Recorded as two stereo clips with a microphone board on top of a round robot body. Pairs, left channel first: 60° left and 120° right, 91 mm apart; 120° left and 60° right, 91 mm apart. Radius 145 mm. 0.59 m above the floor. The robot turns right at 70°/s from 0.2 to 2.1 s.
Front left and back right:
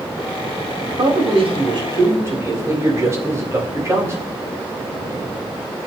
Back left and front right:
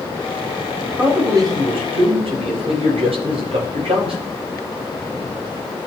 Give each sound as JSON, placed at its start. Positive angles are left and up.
{"t": 1.0, "sound": "a man speaking", "azimuth_deg": -140, "distance_m": 3.5}